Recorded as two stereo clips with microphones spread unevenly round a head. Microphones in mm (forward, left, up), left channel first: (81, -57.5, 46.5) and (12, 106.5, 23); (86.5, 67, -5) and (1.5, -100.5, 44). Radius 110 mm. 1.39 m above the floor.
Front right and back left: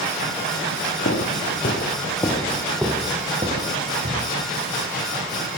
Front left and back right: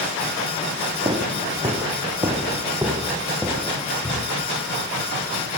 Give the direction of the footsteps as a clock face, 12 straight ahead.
2 o'clock.